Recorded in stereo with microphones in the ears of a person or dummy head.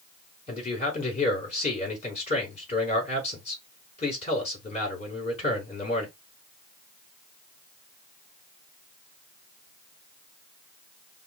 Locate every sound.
0.5 s a man speaking: 45° left (ahead or behind), 4.5 m